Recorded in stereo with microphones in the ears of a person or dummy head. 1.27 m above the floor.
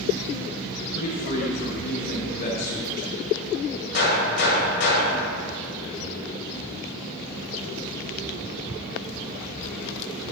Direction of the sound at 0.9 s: 45° left (ahead or behind).